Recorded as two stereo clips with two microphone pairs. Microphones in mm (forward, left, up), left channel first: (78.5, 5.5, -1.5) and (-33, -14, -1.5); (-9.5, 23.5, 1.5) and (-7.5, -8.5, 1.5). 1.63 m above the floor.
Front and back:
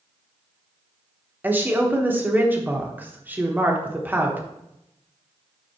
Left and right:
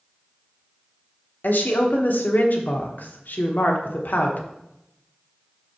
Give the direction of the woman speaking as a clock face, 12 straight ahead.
8 o'clock.